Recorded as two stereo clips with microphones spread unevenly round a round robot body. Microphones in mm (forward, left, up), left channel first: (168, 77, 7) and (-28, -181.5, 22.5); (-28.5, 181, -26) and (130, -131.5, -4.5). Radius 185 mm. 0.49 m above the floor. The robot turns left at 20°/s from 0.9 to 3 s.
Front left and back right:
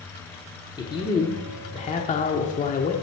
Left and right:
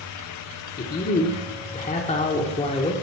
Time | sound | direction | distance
0.8 | a man speaking | 110° left | 0.8 m